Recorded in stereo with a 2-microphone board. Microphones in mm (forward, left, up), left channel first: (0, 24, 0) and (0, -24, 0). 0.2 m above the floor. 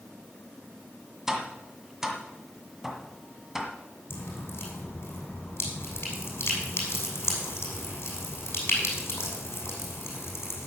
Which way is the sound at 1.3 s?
5° right (ahead or behind).